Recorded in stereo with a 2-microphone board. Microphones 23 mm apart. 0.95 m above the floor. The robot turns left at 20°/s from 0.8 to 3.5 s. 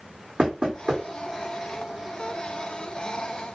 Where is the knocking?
45° right (ahead or behind), 1.4 m.